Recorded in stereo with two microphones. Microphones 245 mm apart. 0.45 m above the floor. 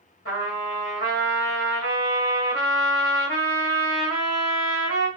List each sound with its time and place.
0.2 s a trumpet: 60° left (ahead or behind), 2.5 m